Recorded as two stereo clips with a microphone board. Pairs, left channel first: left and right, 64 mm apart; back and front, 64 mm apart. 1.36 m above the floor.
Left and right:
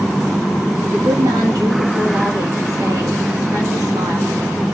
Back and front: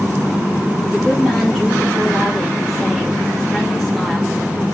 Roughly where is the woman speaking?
Right.